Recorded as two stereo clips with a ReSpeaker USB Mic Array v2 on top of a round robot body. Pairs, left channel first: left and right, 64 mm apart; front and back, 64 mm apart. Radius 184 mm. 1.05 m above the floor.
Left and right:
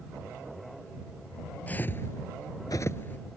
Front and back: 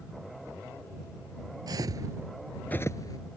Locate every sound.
1.7 s footsteps: 155° left; by 3.2 s 25° left